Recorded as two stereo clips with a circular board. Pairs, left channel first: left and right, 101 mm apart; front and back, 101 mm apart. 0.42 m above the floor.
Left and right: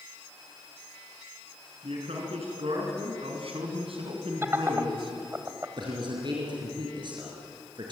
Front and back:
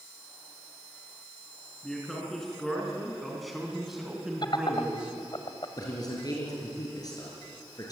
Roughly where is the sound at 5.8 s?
Ahead right.